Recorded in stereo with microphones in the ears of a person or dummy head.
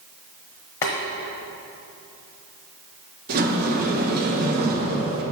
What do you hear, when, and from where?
0.8 s boiling: 10° left (ahead or behind), 1.3 m
3.3 s a sliding door: 50° right (ahead or behind), 1.8 m